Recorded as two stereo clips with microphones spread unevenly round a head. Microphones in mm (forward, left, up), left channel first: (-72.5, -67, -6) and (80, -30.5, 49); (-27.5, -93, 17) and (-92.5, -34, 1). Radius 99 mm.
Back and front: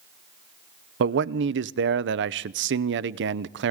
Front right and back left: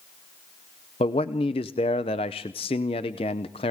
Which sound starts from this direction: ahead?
A man speaking, at 1.0 s.